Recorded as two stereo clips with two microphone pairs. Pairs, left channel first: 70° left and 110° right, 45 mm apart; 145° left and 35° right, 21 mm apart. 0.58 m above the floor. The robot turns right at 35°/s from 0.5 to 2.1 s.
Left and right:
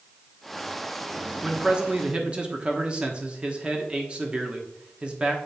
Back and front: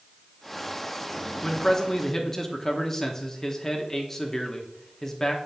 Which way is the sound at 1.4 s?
175° right.